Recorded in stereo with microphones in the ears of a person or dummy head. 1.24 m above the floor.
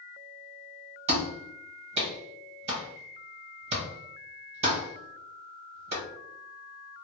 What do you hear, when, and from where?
1.1 s a clap: 35° right (ahead or behind), 1.1 m